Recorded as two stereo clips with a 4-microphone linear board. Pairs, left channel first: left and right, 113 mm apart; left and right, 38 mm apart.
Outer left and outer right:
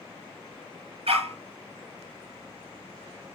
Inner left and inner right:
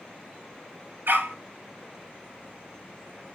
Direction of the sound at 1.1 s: 70° right (ahead or behind).